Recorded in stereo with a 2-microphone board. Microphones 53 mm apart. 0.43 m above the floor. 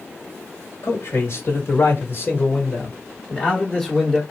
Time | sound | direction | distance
0.8 | a man speaking | 60° left (ahead or behind) | 1.9 m